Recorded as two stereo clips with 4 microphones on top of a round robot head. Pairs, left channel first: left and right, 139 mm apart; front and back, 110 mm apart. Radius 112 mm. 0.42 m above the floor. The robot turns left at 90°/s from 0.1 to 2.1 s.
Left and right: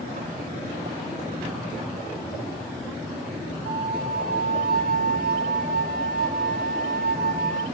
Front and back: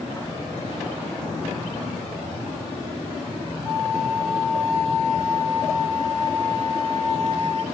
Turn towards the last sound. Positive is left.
turn(degrees=-70)